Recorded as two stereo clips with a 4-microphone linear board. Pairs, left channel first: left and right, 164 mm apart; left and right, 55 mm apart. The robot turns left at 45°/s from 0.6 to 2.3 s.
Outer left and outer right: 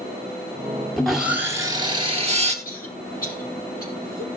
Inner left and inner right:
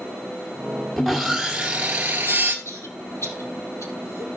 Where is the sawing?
5° left, 1.5 m; by 2.5 s 55° right, 1.5 m.